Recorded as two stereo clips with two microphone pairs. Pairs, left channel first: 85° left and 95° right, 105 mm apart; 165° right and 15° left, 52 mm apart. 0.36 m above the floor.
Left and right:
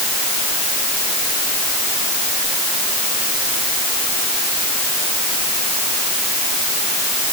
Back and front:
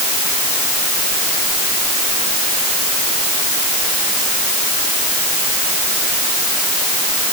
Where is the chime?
No chime in this recording.